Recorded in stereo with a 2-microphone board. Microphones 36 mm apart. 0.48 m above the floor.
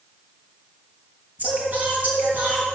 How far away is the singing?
About 4.5 m.